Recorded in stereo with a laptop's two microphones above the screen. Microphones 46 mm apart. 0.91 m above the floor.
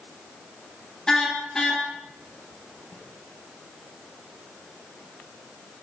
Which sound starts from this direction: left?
A snare drum, at 2.9 s.